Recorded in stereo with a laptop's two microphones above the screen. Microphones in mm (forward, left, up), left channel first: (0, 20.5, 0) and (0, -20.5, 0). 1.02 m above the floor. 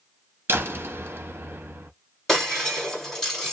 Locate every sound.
0.5 s a door slam: 75° right (ahead or behind), 0.8 m
2.3 s breaking glass: 10° left (ahead or behind), 1.7 m